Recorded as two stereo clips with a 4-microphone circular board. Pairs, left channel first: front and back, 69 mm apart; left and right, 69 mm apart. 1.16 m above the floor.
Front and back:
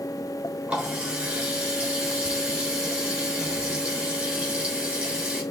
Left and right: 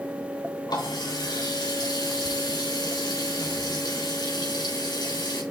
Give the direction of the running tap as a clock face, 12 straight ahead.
9 o'clock.